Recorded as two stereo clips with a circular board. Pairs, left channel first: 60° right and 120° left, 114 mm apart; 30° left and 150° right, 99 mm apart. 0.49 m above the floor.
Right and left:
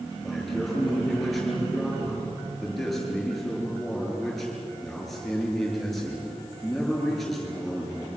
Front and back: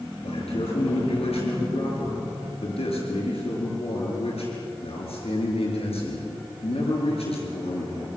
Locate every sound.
0.2 s a man speaking: 30° left, 7.5 m